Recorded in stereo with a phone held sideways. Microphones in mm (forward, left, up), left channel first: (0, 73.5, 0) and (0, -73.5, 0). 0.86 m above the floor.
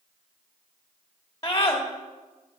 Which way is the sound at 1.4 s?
20° left (ahead or behind).